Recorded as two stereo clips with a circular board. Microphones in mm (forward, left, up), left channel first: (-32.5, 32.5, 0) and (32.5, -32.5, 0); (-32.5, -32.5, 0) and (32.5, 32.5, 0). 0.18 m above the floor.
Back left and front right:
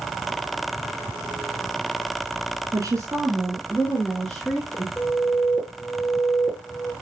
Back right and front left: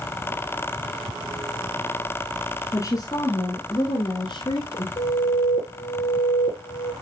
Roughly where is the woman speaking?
Right.